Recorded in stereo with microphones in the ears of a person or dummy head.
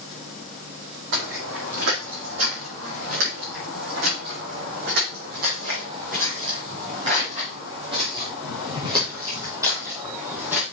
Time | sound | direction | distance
1.1 | footsteps | 70° right (ahead or behind) | 5.5 m